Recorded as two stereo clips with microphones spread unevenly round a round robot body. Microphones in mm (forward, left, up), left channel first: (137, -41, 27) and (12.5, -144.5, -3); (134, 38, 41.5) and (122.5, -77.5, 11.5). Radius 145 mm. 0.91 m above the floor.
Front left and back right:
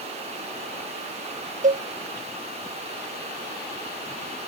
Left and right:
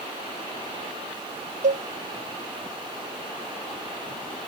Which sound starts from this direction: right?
A cowbell, at 1.6 s.